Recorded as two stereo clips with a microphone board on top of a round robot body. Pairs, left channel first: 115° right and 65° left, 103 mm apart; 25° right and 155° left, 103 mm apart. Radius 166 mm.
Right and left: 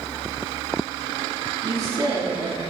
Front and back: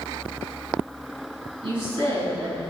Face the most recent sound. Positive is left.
turn(degrees=120)